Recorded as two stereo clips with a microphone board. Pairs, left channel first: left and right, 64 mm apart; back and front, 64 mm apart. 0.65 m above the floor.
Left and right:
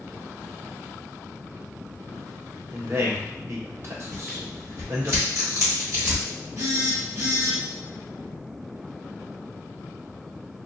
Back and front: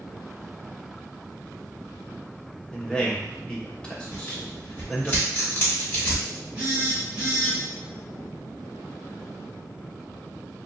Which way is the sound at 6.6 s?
65° right.